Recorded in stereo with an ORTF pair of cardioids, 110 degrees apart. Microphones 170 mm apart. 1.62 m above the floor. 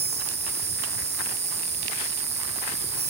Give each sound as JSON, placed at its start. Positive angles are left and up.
{"t": 0.0, "sound": "an insect", "azimuth_deg": -40, "distance_m": 1.3}